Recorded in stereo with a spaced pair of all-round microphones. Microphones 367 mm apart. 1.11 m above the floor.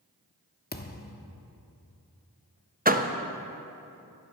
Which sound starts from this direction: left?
A thud, at 0.7 s.